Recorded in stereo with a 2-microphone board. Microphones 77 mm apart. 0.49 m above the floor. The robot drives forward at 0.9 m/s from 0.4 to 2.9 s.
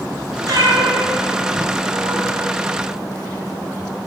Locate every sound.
0.5 s a cat meowing: 55° right (ahead or behind), 1.9 m; by 2.4 s 65° right (ahead or behind), 1.7 m